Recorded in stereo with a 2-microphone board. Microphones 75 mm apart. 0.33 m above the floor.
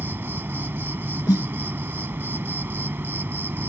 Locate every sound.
0.0 s an insect: 30° right (ahead or behind)
1.3 s a snare drum: 65° left (ahead or behind)